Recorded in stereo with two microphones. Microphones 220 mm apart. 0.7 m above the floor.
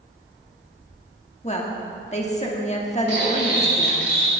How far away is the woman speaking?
About 1.4 m.